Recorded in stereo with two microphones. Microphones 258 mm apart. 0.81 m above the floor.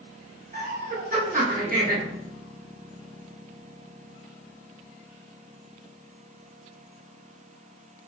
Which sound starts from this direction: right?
Laughter, at 0.5 s.